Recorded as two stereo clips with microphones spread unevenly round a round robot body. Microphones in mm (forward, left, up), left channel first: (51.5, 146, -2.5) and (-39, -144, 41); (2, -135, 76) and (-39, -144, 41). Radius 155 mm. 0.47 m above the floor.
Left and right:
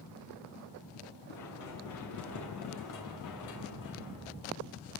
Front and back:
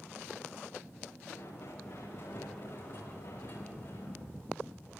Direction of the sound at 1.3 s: 35° left.